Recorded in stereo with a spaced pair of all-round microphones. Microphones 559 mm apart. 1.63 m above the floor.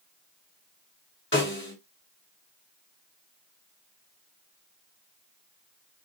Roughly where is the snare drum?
Left.